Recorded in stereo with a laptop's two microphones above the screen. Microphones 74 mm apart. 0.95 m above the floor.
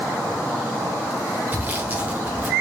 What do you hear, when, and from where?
1.5 s sawing: 20° right (ahead or behind), 1.3 m